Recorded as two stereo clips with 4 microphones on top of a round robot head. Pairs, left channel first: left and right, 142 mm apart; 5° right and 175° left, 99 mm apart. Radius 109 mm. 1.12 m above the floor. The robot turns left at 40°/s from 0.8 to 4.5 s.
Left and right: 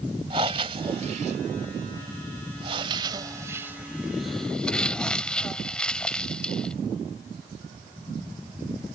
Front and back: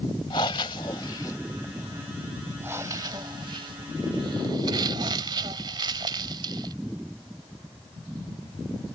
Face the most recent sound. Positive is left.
turn(degrees=170)